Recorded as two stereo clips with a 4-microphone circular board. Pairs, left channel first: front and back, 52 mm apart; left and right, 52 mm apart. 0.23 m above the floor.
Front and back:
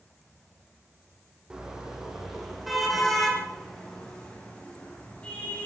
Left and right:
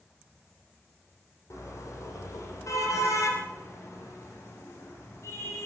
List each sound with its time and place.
1.5 s a car horn: 105° left, 5.5 m; by 5.7 s 65° left, 7 m